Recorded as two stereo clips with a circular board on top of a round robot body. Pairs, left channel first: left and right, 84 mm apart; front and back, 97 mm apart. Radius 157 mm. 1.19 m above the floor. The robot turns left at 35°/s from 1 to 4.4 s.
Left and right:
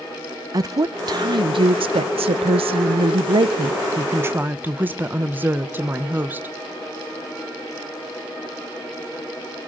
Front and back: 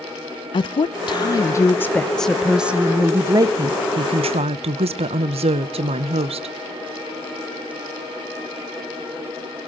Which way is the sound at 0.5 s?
40° right.